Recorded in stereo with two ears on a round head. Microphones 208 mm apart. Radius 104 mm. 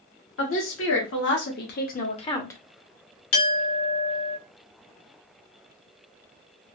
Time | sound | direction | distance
0.4 | a woman speaking | 60° left (ahead or behind) | 1.6 m
3.3 | a clink | 65° left (ahead or behind) | 0.9 m